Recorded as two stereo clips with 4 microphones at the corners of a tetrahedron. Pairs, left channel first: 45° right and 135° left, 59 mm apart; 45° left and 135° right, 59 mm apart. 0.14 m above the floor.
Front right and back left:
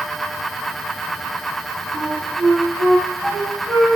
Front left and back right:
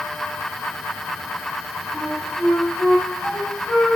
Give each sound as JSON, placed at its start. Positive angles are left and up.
{"t": 1.9, "sound": "a flute", "azimuth_deg": 85, "distance_m": 1.5}